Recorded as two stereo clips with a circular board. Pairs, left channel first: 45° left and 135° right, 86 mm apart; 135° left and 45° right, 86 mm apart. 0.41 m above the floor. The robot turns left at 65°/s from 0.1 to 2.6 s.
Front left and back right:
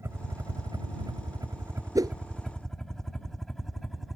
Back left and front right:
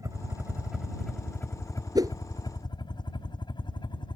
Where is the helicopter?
85° right; by 4.2 s 135° left.